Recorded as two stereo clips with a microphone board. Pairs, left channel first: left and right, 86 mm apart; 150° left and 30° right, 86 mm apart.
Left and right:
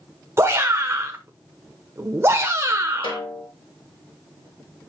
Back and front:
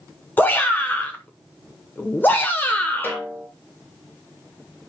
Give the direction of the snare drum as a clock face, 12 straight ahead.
9 o'clock.